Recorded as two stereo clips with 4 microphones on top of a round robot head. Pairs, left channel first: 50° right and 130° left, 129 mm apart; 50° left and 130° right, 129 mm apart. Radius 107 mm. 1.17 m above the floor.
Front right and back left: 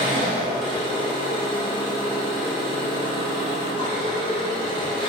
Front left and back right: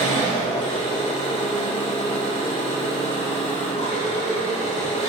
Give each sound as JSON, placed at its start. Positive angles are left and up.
{"t": 0.0, "sound": "an engine running", "azimuth_deg": 5, "distance_m": 0.8}